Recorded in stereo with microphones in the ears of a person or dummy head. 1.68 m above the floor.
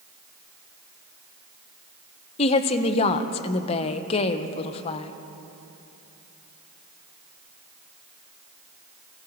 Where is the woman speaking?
35° left (ahead or behind), 1.0 m.